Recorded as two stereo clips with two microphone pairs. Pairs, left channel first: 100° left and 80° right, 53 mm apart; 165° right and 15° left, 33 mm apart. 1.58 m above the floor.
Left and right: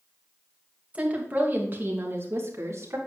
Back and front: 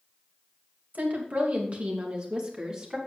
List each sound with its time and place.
0.9 s a woman speaking: 15° right, 2.5 m; by 3.0 s 50° right, 3.5 m